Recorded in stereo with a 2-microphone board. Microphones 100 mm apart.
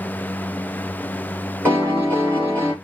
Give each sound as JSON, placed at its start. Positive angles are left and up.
{"t": 1.6, "sound": "a piano", "side_deg": -25, "distance_m": 2.5}